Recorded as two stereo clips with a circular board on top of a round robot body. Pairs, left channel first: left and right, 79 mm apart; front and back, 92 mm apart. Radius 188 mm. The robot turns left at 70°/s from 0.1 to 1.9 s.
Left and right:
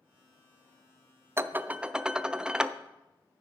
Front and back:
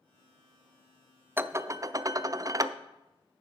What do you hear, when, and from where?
1.4 s dishes clattering: 125° right, 0.5 m; by 2.8 s 165° right, 0.5 m